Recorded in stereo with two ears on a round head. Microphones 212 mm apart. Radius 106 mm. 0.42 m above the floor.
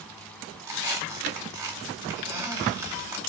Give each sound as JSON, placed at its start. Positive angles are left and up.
{"t": 0.6, "sound": "a squeak", "side_deg": -15, "distance_m": 1.0}